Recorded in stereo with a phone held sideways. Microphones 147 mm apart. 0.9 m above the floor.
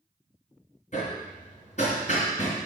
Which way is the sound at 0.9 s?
55° left (ahead or behind).